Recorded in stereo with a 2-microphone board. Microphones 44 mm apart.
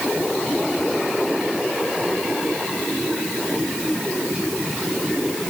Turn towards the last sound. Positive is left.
No sound to turn to.